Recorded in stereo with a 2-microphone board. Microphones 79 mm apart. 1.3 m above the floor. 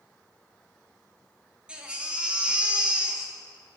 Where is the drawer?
I don't hear a drawer.